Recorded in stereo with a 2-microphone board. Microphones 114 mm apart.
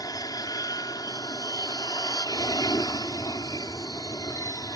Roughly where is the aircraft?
Left.